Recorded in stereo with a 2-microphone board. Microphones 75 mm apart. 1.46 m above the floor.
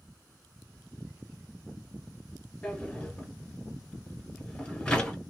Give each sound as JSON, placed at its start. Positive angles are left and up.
{"t": 2.6, "sound": "a drawer", "side_deg": 10, "distance_m": 1.9}